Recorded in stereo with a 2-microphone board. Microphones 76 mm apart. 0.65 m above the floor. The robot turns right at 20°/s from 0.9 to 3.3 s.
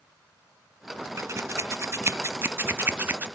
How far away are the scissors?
About 0.5 m.